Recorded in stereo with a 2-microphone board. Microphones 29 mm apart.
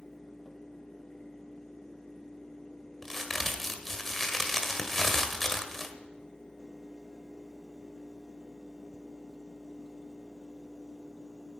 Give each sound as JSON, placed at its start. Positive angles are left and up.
{"t": 3.0, "sound": "a crack", "side_deg": 10, "distance_m": 1.5}